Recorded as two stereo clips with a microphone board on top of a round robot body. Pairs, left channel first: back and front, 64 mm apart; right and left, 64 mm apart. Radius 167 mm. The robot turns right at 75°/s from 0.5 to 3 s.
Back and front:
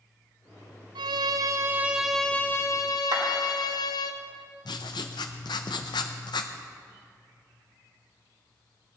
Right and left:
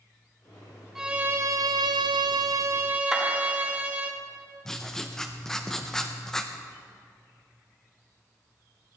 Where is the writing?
175° right, 0.6 m.